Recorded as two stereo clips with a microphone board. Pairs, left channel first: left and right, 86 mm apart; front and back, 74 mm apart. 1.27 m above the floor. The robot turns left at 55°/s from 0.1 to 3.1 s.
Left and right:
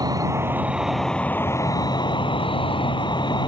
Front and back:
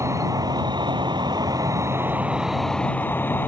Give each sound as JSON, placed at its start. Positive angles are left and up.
{"t": 0.0, "sound": "an insect", "azimuth_deg": -135}